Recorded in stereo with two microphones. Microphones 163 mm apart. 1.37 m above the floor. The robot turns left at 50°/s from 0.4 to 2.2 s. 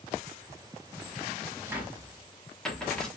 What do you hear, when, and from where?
1.7 s a cupboard door: 15° right (ahead or behind), 1.1 m; by 3.1 s 5° left (ahead or behind), 1.1 m